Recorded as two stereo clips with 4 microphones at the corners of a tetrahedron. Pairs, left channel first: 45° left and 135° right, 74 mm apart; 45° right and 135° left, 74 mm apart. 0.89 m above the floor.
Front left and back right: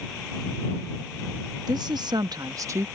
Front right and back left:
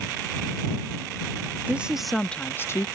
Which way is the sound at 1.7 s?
155° right.